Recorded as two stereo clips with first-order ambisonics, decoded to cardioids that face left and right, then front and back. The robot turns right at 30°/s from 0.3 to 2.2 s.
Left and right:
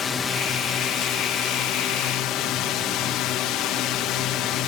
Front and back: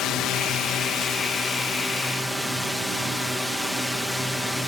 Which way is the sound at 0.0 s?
35° left.